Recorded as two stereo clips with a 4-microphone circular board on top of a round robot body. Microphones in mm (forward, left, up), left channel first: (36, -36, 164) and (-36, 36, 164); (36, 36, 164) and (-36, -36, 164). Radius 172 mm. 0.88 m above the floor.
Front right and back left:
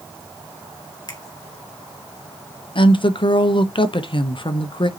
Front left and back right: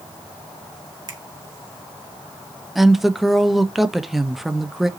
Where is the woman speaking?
50° right, 1.2 m.